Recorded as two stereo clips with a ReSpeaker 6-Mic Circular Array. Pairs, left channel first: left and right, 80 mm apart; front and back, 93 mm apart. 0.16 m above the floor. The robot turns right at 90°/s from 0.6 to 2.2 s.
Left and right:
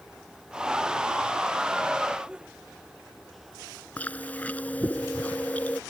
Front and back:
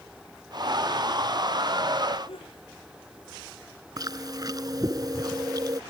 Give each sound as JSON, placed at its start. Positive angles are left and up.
{"t": 2.3, "sound": "a sneeze", "azimuth_deg": -10}
{"t": 4.0, "sound": "chewing", "azimuth_deg": 155}